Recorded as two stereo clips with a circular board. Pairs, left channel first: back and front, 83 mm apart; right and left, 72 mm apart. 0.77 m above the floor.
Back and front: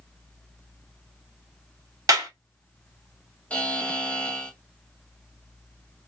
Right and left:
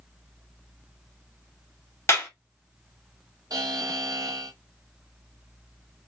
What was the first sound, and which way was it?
A clap, 40° right.